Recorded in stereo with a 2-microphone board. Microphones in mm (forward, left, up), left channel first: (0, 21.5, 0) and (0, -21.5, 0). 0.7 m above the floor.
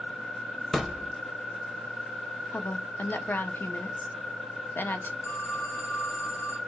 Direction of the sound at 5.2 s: 90° left.